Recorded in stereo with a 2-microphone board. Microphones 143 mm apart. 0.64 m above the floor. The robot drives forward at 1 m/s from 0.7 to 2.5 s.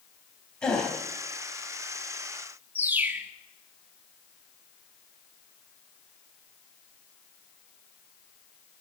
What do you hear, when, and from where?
0.6 s a gasp: 5° left (ahead or behind), 3.5 m
2.8 s a bird: 15° right (ahead or behind), 1.1 m